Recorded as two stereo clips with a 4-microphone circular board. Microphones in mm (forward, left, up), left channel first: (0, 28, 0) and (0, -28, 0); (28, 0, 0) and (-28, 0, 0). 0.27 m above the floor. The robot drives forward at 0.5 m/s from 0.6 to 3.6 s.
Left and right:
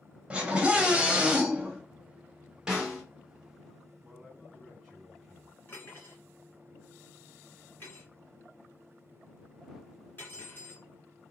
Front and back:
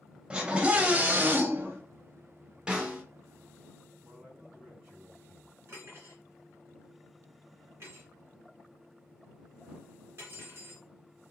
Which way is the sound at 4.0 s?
Straight behind.